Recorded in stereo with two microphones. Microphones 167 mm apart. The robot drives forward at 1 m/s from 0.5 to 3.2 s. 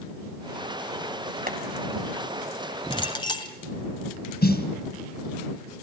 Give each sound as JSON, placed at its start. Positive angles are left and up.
{"t": 1.5, "sound": "boiling", "side_deg": -60, "distance_m": 2.5}
{"t": 2.9, "sound": "a clink", "side_deg": 30, "distance_m": 1.9}
{"t": 4.4, "sound": "a snare drum", "side_deg": 75, "distance_m": 2.5}